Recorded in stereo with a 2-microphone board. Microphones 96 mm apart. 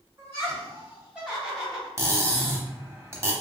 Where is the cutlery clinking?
30° right (ahead or behind), 0.7 m.